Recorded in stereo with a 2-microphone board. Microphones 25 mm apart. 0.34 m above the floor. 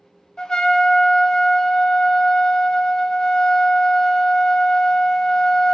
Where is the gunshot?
I don't hear a gunshot.